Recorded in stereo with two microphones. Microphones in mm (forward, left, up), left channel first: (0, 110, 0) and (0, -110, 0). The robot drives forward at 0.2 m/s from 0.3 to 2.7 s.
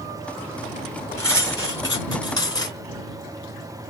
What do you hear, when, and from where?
1.2 s cutlery clinking: 15° left (ahead or behind), 1.3 m